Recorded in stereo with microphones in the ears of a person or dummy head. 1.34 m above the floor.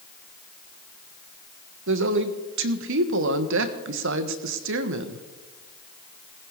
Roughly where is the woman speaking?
Right.